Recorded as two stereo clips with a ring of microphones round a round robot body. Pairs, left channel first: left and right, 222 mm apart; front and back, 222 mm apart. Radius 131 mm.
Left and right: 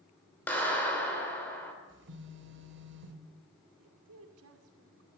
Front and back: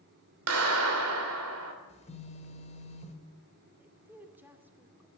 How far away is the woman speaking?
About 2.5 m.